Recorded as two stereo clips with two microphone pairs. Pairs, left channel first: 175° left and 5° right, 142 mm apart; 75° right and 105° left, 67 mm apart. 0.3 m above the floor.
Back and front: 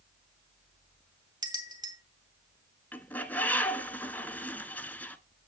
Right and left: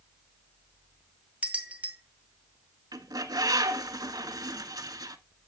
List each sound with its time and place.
1.4 s a bell: 45° left, 2.0 m
2.9 s a bird: 100° left, 0.9 m